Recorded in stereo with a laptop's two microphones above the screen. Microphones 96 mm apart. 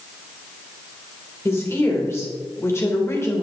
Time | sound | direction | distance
1.4 | a woman speaking | 30° left (ahead or behind) | 2.5 m